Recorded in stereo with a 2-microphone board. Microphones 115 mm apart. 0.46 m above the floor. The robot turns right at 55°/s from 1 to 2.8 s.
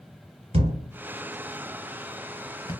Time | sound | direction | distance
0.5 | a thud | 55° right (ahead or behind) | 0.9 m